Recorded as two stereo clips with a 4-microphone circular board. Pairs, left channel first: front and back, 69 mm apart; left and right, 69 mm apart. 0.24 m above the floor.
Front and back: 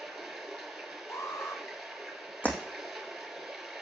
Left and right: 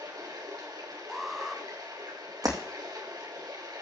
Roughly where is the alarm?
Ahead.